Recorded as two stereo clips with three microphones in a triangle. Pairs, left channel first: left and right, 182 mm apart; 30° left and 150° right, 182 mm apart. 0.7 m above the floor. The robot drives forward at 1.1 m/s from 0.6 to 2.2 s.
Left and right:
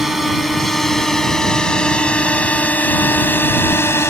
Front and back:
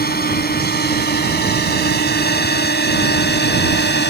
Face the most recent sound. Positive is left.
turn(degrees=15)